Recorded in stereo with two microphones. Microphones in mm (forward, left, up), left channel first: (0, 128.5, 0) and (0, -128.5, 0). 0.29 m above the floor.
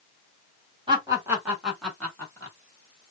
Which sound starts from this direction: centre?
Laughter, at 0.9 s.